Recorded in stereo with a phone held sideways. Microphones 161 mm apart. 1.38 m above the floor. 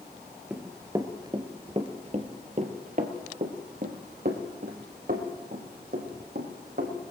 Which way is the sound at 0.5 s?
10° right (ahead or behind).